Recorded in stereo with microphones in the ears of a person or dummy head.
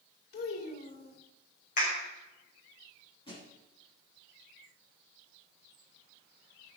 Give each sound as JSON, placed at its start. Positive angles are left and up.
{"t": 0.3, "sound": "a child speaking", "side_deg": 55, "distance_m": 3.5}
{"t": 1.8, "sound": "a clap", "side_deg": 45, "distance_m": 5.5}
{"t": 3.3, "sound": "a thud", "side_deg": 25, "distance_m": 7.5}